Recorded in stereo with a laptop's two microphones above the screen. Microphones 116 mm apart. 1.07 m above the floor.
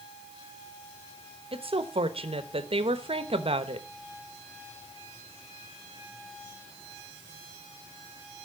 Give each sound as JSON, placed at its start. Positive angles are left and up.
{"t": 1.5, "sound": "a woman speaking", "side_deg": -55, "distance_m": 0.8}